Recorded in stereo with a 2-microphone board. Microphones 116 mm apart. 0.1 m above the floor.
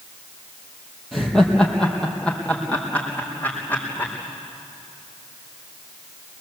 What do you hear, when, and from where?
1.1 s laughter: centre (ahead or behind), 3.5 m; by 4.1 s 15° left (ahead or behind), 6 m